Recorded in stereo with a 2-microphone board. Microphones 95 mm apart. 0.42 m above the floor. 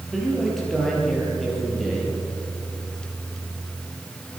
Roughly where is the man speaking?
Centre.